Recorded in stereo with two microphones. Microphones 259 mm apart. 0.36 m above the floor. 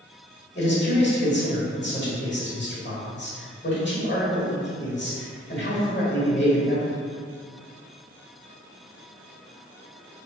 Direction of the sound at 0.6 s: 45° left (ahead or behind).